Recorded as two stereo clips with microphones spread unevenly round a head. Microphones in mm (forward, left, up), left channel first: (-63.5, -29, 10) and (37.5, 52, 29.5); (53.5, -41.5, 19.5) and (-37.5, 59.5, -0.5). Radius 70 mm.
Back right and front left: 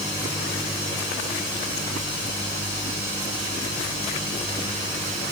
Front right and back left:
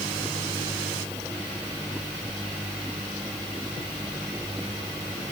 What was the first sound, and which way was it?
Only background noise.